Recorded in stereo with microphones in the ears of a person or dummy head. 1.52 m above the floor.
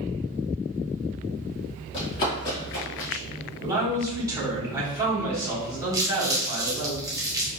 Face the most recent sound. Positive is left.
turn(degrees=-10)  # may be behind; listen again after turning